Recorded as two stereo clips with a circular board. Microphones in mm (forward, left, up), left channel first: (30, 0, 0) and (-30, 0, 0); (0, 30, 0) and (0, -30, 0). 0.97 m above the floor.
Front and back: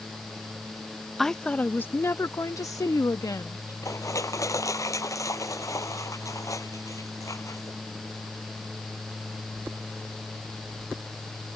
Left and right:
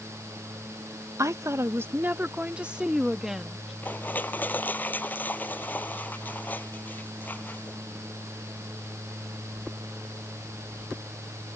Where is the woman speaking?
85° right; by 3.7 s 5° right.